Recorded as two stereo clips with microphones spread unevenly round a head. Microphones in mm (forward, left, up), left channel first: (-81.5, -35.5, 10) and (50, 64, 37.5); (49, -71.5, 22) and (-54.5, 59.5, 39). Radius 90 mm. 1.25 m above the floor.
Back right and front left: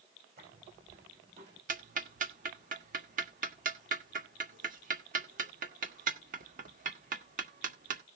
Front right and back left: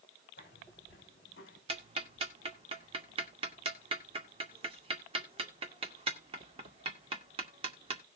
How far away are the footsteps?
About 5 m.